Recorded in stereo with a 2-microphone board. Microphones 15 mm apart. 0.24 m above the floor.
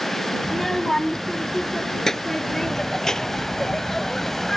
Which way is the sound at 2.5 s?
25° left (ahead or behind).